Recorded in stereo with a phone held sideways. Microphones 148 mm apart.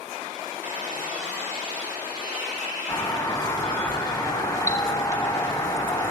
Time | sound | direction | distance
0.6 | a squeak | 65° right (ahead or behind) | 4 m
2.9 | a doorbell | 25° left (ahead or behind) | 1.4 m